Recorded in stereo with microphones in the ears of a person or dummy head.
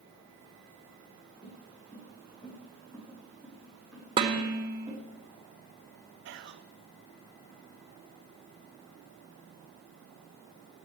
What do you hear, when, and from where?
1.4 s footsteps: 30° left (ahead or behind), 5 m; by 5.0 s 10° right (ahead or behind), 4.5 m
4.2 s dishes clattering: 30° right (ahead or behind), 1.4 m
6.2 s whispering: 60° right (ahead or behind), 0.6 m